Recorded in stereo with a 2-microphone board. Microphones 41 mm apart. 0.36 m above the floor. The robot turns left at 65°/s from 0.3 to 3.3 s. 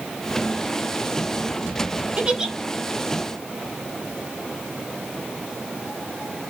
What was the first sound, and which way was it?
A giggle, 35° right (ahead or behind).